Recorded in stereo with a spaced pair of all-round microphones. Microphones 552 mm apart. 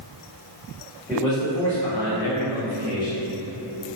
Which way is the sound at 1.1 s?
5° right (ahead or behind).